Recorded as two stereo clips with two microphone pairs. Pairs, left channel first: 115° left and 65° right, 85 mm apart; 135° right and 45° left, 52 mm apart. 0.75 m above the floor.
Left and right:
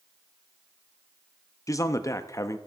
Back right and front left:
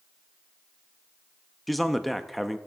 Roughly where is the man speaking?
Behind left.